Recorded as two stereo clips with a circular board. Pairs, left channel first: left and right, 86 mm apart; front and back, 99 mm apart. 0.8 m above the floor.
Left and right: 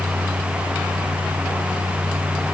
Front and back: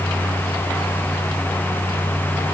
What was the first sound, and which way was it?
Only background noise.